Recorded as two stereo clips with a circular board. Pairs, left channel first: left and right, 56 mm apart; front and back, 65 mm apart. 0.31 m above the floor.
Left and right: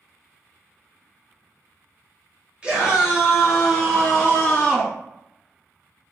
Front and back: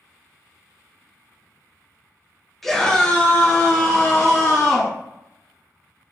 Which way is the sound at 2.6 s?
80° right.